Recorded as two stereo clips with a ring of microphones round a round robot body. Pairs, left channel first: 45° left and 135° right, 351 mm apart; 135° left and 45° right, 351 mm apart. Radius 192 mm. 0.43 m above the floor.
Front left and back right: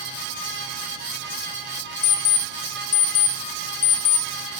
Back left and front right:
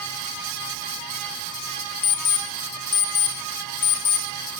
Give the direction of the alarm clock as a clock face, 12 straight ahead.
9 o'clock.